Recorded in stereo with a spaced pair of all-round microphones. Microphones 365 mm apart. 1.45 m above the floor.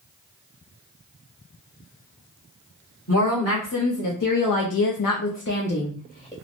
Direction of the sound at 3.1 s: 40° left (ahead or behind).